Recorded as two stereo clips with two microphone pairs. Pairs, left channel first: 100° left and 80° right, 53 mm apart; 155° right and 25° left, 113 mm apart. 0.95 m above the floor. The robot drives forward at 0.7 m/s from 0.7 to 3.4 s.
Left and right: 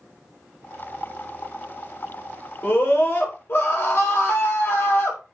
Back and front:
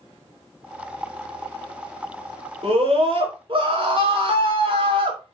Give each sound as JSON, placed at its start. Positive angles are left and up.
{"t": 2.6, "sound": "a scream", "azimuth_deg": 55, "distance_m": 4.0}